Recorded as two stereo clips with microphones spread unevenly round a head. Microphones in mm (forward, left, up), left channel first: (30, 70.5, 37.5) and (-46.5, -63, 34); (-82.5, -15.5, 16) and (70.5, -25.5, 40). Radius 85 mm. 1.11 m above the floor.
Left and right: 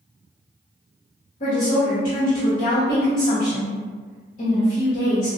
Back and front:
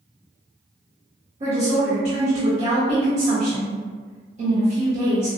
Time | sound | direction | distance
1.4 | a woman speaking | 40° left | 1.2 m